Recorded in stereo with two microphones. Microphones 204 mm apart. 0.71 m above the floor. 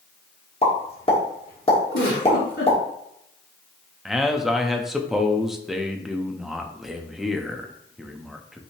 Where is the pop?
30° left (ahead or behind), 1.3 m.